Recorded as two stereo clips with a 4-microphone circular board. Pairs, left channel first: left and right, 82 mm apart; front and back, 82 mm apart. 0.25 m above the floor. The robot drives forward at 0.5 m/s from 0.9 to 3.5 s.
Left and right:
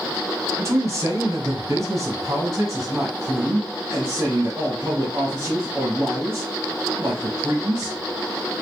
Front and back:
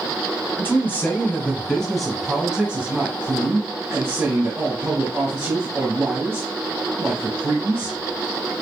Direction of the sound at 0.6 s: 55° right.